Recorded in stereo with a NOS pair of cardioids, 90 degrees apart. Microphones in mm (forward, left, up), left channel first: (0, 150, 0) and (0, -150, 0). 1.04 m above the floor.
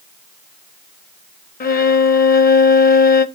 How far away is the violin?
About 1.0 m.